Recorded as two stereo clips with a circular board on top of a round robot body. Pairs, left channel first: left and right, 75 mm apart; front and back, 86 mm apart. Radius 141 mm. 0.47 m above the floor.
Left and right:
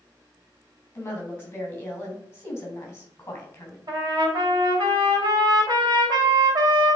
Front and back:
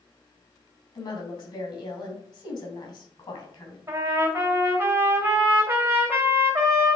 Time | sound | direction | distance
0.9 | a woman speaking | 25° left | 3.5 m
3.9 | a trumpet | 115° right | 2.5 m